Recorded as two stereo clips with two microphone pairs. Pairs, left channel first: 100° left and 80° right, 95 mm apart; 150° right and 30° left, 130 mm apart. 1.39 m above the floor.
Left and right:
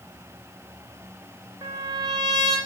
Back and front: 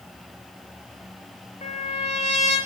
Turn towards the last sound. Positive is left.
turn(degrees=-120)